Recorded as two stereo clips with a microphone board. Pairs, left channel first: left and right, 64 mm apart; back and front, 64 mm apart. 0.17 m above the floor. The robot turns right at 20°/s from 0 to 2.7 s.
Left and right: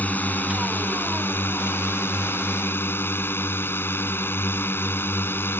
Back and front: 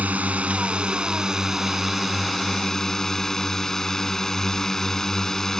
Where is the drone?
45° left; by 5.6 s 100° left.